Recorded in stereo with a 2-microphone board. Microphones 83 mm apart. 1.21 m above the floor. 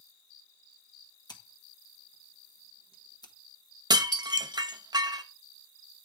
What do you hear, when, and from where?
1.3 s scissors: 55° left (ahead or behind), 1.2 m
3.9 s dishes clattering: 55° right (ahead or behind), 0.7 m